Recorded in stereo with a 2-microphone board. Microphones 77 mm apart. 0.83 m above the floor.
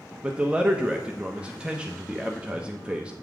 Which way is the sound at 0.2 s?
15° right (ahead or behind).